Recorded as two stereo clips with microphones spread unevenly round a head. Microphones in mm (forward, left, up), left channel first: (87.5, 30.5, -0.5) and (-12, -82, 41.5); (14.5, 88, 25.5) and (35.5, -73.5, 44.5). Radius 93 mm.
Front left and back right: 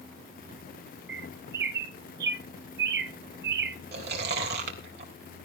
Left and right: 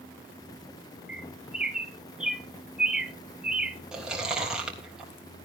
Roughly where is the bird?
Behind.